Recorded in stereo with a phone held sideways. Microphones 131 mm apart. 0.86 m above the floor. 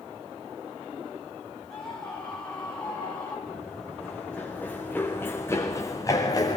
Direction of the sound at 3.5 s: Centre (ahead or behind).